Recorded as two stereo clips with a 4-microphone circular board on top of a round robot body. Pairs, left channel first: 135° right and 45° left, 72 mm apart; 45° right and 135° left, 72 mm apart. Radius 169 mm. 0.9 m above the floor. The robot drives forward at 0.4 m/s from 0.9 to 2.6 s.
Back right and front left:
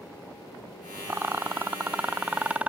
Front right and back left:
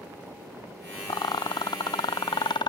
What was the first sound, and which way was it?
A rattle, 20° right.